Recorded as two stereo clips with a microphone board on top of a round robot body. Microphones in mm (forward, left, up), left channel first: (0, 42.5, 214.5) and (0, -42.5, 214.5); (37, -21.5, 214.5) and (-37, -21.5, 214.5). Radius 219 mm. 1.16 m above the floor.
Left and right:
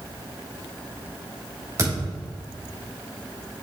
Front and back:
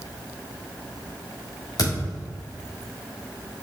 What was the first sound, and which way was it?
A thud, 35° right.